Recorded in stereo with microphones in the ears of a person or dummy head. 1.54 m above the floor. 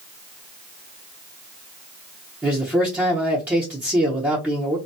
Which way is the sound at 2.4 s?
10° right (ahead or behind).